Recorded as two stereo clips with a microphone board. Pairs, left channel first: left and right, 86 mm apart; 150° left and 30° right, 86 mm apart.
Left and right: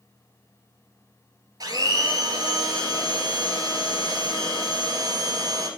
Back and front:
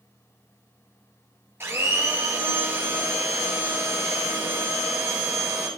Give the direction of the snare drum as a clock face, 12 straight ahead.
No snare drum in this recording.